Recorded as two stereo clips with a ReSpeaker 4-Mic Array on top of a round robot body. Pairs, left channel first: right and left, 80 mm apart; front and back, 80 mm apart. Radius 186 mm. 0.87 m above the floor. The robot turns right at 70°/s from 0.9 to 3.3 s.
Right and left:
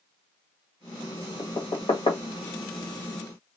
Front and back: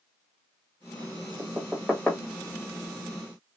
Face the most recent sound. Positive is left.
turn(degrees=0)